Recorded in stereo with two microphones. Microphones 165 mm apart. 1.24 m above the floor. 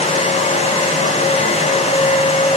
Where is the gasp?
I don't hear a gasp.